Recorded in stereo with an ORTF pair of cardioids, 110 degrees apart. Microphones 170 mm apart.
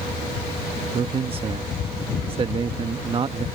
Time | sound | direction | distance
0.9 | a man speaking | 35° right | ?